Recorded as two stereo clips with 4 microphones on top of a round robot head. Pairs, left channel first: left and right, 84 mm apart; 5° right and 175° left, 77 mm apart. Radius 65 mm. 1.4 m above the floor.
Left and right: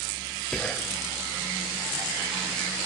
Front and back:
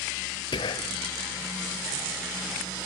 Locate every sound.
0.5 s whispering: 5° left, 0.6 m